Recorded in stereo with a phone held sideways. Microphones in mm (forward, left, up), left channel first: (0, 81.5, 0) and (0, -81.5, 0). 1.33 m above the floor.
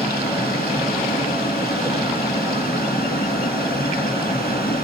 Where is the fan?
65° left (ahead or behind), 1.1 m.